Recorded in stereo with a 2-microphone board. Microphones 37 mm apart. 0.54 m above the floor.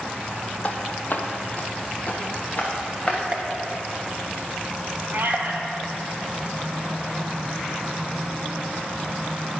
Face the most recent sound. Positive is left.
turn(degrees=-60)  # may be behind; listen again after turning